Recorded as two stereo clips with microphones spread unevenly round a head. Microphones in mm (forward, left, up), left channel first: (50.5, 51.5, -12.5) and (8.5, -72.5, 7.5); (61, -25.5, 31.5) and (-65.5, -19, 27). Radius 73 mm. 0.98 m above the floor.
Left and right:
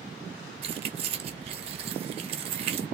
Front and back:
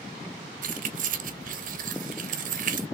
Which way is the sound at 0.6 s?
160° right.